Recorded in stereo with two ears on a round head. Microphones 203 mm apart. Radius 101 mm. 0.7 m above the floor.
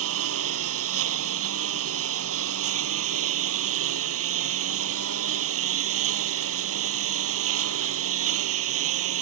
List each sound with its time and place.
0.0 s a lawn mower: 70° right (ahead or behind)